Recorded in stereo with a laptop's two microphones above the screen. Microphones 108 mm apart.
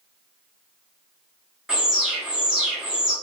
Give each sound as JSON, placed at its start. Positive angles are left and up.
{"t": 1.7, "sound": "an alarm", "side_deg": -5, "distance_m": 0.8}